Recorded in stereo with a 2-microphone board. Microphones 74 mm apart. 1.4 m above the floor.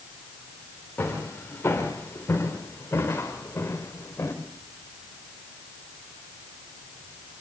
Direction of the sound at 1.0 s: 25° left (ahead or behind).